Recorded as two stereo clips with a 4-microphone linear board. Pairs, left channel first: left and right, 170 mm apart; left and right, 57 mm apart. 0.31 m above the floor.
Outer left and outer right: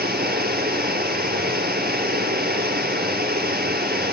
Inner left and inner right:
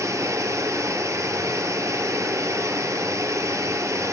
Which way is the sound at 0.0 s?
55° right (ahead or behind).